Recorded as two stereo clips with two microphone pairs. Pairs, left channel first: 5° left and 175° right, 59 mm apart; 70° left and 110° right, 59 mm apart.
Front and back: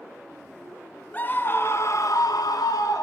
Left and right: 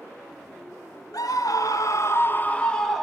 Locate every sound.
1.1 s a scream: 65° left, 1.3 m; by 3.0 s 15° right, 1.1 m